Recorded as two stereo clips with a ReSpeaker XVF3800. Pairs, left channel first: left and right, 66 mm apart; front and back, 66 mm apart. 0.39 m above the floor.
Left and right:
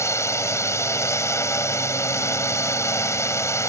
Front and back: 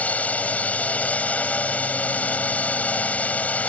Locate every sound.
0.0 s a drone: 65° left